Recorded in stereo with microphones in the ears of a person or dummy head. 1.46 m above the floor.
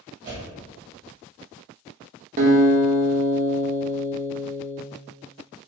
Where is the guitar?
40° right (ahead or behind), 0.5 m.